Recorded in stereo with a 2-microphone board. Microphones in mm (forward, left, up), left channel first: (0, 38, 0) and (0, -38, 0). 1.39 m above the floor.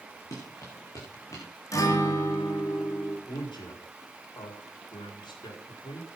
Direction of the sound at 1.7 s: 45° left (ahead or behind).